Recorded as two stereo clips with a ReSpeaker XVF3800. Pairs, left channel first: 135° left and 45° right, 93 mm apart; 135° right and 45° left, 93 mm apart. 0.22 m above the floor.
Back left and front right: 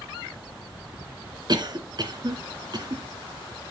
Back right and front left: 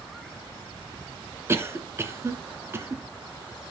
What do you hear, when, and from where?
1.5 s a cough: 15° right, 2.0 m